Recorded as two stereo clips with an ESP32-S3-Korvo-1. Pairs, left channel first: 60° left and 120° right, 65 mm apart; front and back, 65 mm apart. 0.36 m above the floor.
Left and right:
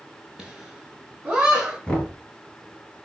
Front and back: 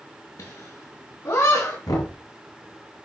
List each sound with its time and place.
0.4 s laughter: 35° right, 5 m; by 1.8 s 45° right, 3.5 m
1.9 s knocking: 10° right, 4.5 m